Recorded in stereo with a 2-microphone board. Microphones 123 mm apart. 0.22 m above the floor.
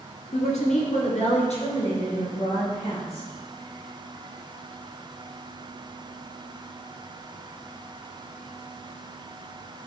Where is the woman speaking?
65° left (ahead or behind), 2.5 m; by 3.3 s 50° left (ahead or behind), 4 m.